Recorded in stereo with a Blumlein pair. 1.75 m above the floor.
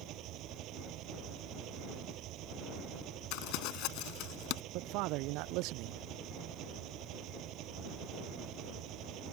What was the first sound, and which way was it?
An engine running, 35° right.